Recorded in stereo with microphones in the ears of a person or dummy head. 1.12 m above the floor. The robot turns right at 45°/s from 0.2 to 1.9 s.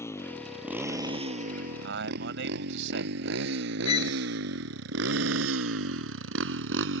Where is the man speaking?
80° right; by 3.5 s 75° right (ahead or behind).